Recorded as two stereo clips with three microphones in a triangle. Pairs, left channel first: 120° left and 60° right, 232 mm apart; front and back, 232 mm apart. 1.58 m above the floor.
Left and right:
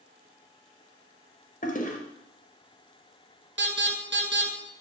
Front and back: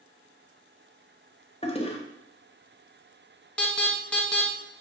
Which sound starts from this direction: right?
An alarm, at 3.6 s.